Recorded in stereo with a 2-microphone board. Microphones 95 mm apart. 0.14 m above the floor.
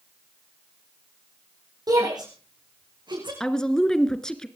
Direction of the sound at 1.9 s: 40° right (ahead or behind).